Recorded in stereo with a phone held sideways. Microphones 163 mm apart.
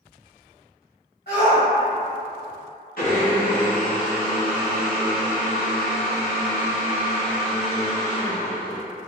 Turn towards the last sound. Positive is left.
turn(degrees=65)  # may be behind; listen again after turning